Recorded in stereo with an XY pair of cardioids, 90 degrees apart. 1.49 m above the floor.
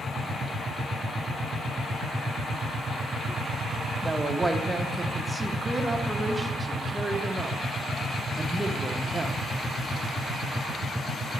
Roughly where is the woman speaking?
Ahead.